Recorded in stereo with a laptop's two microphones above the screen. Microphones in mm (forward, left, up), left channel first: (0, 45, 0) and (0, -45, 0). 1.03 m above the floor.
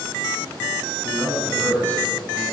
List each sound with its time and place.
1.0 s a man speaking: 20° left (ahead or behind), 7.5 m